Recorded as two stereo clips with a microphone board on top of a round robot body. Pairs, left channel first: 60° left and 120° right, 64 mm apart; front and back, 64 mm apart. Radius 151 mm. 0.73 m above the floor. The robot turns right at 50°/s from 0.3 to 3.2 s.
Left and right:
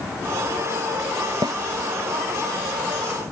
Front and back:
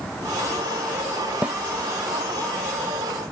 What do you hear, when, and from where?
1.4 s a snare drum: 110° right; by 1.6 s 100° right